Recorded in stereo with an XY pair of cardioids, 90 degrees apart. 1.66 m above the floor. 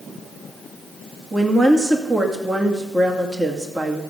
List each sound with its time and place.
1.3 s a woman speaking: 25° right, 2 m